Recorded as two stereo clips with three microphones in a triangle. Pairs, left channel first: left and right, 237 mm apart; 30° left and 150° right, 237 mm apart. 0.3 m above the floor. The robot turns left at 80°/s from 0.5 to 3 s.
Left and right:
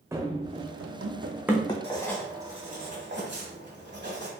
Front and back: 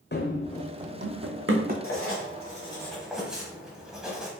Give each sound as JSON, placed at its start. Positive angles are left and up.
{"t": 0.1, "sound": "running footsteps", "azimuth_deg": -10, "distance_m": 0.7}
{"t": 1.8, "sound": "writing", "azimuth_deg": 30, "distance_m": 1.2}